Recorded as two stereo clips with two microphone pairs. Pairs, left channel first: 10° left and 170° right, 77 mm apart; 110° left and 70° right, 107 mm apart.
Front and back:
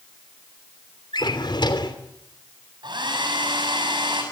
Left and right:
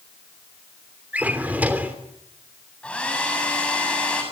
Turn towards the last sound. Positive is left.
turn(degrees=-170)